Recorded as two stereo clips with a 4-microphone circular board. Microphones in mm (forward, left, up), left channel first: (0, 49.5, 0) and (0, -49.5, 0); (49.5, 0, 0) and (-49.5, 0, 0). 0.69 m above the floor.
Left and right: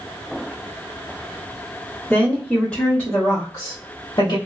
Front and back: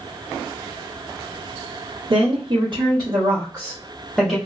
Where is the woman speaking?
175° right, 1.5 m; by 4.4 s 90° left, 1.1 m.